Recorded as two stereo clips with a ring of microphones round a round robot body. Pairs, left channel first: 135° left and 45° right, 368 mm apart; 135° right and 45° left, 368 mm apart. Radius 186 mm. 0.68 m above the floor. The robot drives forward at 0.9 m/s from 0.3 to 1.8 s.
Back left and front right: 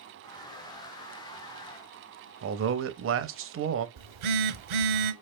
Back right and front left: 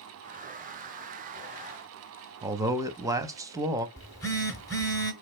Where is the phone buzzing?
55° right, 0.7 m.